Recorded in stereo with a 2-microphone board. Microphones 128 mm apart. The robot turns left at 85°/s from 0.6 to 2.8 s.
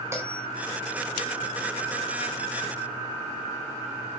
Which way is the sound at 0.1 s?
20° right (ahead or behind).